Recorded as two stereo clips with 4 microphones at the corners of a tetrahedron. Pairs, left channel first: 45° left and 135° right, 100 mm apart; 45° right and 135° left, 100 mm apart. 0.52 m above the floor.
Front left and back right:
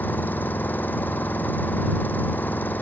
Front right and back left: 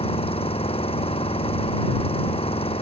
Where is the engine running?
25° right.